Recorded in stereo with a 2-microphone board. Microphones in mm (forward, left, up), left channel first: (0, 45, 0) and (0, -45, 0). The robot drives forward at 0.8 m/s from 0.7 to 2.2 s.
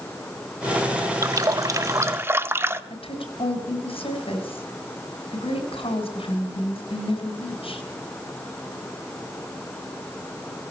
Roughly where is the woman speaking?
Left.